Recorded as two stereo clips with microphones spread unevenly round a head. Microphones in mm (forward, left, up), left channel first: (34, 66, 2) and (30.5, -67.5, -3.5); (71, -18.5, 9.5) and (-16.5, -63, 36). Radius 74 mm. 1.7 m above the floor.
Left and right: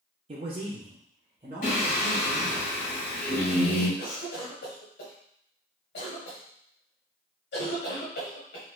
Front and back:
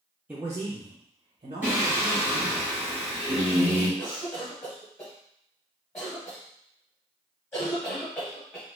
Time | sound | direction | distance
0.3 | a man speaking | 105° right | 0.5 m
1.6 | singing | 130° left | 1.2 m
4.0 | a cough | 100° left | 0.9 m